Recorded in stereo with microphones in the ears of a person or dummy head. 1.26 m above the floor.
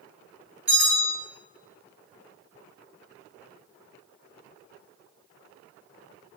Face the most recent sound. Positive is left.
turn(degrees=-5)  # may be behind; listen again after turning